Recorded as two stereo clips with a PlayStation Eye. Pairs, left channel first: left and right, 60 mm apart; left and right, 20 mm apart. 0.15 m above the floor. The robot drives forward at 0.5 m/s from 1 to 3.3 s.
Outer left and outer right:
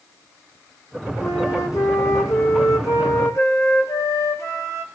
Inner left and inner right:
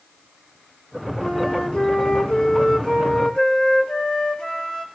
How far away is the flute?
About 1.9 m.